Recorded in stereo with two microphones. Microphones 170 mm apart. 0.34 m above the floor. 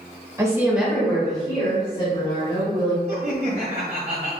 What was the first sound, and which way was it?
A woman speaking, 20° right (ahead or behind).